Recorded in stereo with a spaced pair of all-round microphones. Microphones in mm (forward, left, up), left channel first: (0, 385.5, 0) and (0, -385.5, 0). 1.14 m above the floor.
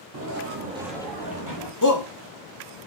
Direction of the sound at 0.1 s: 30° right (ahead or behind).